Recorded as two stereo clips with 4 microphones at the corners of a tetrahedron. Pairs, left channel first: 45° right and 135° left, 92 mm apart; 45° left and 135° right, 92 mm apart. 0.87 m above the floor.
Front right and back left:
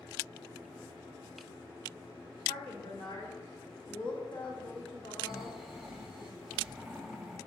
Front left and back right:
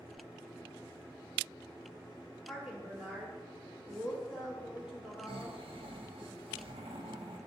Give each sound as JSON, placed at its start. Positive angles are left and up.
{"t": 2.5, "sound": "a woman speaking", "azimuth_deg": -50, "distance_m": 2.5}
{"t": 5.3, "sound": "snoring", "azimuth_deg": -140, "distance_m": 0.9}